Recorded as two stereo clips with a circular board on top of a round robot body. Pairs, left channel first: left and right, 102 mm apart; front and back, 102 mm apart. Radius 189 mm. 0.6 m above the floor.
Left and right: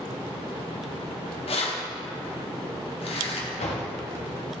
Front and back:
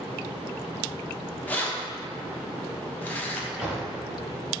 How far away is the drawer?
About 0.7 m.